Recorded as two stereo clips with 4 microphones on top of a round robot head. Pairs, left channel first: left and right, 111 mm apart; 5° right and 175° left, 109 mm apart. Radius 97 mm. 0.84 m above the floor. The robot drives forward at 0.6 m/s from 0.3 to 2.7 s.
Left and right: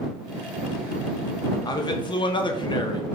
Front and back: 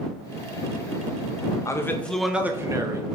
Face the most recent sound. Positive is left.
turn(degrees=120)